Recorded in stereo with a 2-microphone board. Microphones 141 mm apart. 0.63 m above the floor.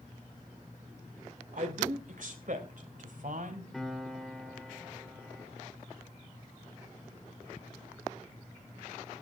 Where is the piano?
Centre (ahead or behind), 2.5 m.